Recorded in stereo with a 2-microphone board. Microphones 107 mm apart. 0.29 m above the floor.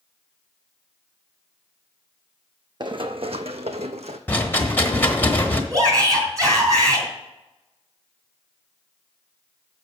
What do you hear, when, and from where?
2.8 s running footsteps: 45° right (ahead or behind), 0.7 m; by 4.2 s 70° right (ahead or behind), 0.9 m
4.3 s a rattle: 15° left (ahead or behind), 1.2 m
5.7 s a shout: 35° right (ahead or behind), 3.5 m